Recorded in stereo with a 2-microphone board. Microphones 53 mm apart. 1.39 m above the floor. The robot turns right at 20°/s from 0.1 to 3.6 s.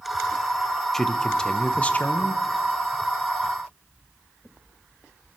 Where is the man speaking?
10° left (ahead or behind), 0.7 m; by 2.4 s 35° left (ahead or behind), 0.7 m.